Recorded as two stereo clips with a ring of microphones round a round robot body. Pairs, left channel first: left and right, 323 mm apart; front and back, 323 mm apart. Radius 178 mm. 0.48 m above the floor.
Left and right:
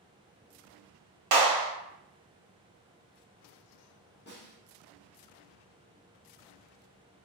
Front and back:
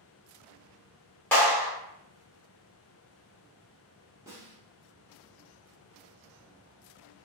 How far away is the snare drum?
About 1.0 m.